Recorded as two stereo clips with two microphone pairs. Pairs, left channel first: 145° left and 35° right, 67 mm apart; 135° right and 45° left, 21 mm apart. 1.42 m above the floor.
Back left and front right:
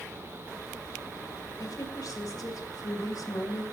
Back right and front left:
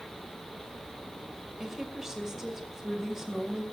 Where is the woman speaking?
115° left, 6 m.